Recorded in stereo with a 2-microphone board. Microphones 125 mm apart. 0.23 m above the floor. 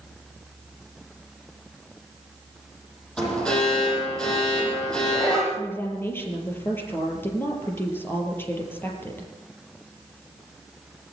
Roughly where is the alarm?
Centre.